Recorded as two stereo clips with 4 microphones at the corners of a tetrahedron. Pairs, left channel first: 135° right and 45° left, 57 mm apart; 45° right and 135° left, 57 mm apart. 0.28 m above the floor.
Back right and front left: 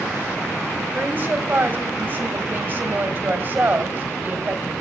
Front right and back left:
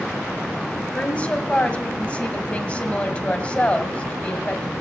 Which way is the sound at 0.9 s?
10° left.